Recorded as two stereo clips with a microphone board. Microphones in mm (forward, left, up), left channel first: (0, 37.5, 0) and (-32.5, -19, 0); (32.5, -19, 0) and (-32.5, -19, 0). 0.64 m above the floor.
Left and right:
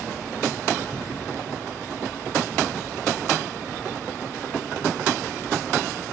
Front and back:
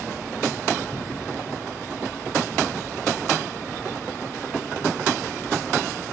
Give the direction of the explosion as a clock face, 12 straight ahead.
11 o'clock.